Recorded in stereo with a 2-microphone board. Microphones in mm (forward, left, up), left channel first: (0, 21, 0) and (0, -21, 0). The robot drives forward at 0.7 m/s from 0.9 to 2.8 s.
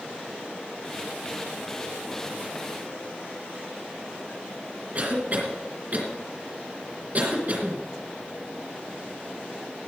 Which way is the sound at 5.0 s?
45° right (ahead or behind).